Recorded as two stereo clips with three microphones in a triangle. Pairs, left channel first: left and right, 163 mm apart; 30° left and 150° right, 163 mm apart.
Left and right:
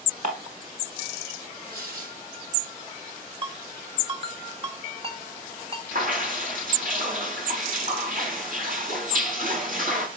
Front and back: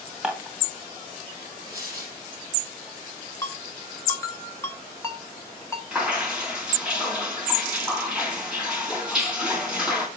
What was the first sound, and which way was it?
Dishes clattering, 65° right.